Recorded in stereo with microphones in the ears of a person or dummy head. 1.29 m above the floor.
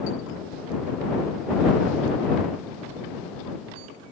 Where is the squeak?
I don't hear a squeak.